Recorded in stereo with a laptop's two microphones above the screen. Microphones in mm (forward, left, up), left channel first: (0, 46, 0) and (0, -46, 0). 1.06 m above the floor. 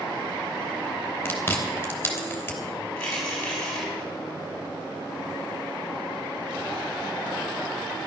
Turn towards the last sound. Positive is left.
turn(degrees=15)  # may be behind; listen again after turning